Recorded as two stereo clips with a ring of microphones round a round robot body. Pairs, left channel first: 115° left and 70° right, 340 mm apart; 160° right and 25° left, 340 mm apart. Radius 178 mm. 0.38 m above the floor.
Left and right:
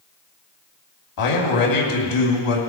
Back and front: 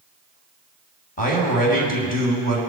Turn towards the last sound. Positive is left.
turn(degrees=135)